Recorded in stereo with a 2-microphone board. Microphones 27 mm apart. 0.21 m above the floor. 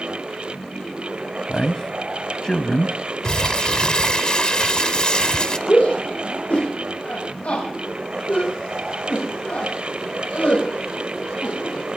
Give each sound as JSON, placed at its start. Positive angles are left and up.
{"t": 1.5, "sound": "a man speaking", "side_deg": 20, "distance_m": 1.1}
{"t": 3.2, "sound": "crumpling", "side_deg": 30, "distance_m": 0.9}
{"t": 5.7, "sound": "a shout", "side_deg": 60, "distance_m": 8.0}